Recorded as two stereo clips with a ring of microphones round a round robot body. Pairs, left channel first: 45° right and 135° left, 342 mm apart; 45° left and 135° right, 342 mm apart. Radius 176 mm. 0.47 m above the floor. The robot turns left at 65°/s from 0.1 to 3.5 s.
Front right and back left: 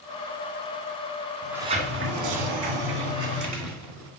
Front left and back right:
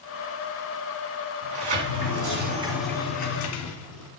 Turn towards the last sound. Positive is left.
turn(degrees=90)